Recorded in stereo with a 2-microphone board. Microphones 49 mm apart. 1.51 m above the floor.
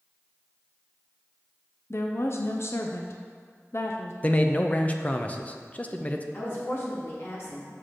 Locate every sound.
1.9 s a woman speaking: 55° left (ahead or behind), 0.6 m
4.2 s a man speaking: 25° left (ahead or behind), 0.6 m
6.3 s a woman speaking: 50° left (ahead or behind), 2.5 m